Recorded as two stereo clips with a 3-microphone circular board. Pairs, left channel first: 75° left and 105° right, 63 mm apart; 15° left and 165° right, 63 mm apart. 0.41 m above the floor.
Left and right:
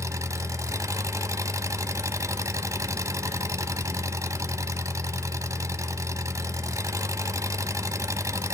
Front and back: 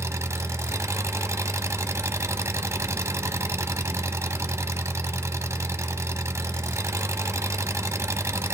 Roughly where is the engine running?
Behind right.